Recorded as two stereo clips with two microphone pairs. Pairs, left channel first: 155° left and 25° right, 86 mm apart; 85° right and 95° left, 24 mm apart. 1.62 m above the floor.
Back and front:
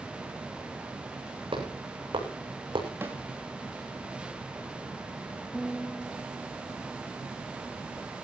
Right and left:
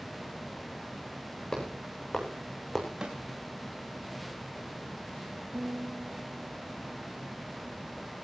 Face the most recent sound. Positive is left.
turn(degrees=70)